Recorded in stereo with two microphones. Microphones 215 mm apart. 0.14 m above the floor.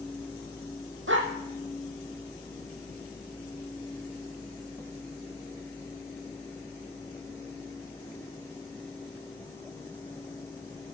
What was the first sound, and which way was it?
A dog barking, 65° right (ahead or behind).